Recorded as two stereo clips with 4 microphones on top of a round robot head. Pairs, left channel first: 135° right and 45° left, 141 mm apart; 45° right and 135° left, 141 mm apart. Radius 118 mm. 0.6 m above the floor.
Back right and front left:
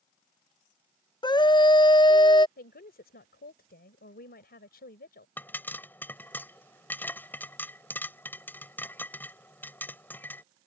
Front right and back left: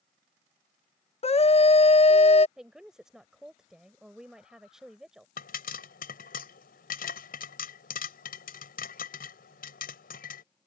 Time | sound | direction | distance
1.2 | a scream | 80° right | ?
2.6 | a woman speaking | 140° right | ?
5.4 | a pop | 55° right | ?